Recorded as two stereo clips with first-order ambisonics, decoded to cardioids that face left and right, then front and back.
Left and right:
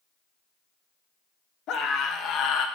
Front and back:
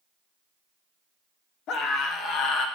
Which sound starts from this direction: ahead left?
A scream, at 1.7 s.